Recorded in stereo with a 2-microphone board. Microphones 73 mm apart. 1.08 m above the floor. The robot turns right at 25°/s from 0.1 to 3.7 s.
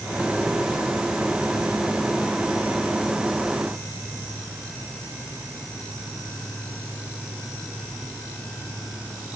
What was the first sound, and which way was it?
Only background noise.